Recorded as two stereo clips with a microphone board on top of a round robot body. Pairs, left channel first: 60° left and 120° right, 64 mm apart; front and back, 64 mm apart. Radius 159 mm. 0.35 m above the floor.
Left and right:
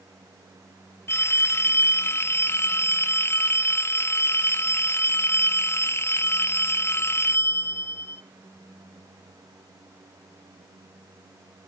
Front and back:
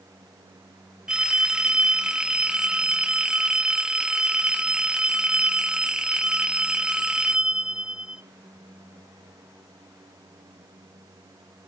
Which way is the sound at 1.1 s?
105° left.